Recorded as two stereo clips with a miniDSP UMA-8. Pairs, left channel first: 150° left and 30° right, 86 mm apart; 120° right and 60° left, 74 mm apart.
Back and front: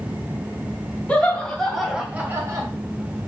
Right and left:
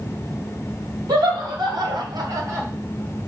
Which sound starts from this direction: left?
Laughter, at 1.1 s.